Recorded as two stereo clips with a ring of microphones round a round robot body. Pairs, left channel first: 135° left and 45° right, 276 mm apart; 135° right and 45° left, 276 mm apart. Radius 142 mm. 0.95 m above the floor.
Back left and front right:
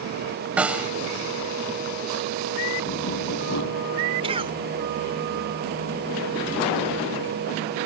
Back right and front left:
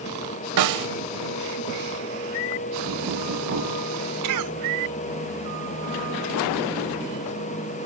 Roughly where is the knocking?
Left.